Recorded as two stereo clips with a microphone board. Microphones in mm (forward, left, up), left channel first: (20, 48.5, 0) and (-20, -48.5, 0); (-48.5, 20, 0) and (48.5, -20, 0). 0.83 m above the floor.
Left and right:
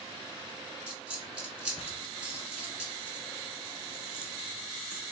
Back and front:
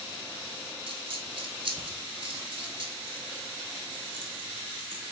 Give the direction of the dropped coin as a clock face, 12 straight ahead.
1 o'clock.